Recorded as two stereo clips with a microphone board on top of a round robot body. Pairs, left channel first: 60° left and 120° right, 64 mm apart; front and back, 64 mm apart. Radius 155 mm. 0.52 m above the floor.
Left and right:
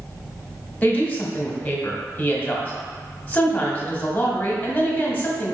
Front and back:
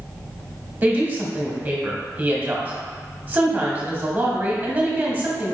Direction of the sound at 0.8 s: 125° left.